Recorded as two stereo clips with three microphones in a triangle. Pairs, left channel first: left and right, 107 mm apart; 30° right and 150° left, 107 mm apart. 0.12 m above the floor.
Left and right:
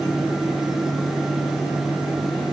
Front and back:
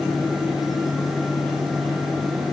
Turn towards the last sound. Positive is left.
No sound to turn to.